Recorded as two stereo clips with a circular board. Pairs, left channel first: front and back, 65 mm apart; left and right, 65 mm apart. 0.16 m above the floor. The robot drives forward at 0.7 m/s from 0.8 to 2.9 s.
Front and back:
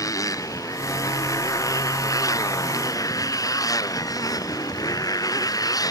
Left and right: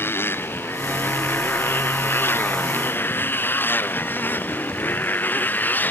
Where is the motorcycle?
35° left; by 5.9 s 25° left.